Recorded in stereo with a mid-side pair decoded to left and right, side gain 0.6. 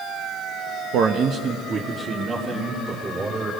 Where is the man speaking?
65° right, 1.2 m; by 3.5 s 25° right, 4.5 m.